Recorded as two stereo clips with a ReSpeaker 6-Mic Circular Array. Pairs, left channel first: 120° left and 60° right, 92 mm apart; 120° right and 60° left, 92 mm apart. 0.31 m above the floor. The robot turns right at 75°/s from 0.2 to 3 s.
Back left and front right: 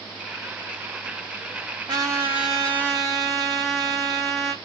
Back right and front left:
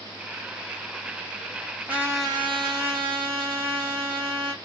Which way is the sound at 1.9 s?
20° right.